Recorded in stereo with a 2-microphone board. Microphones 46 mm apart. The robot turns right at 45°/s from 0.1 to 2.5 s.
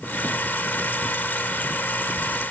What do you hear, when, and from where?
Only background noise.